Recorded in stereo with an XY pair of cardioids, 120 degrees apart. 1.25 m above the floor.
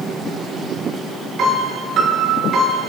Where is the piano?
60° right, 4.5 m.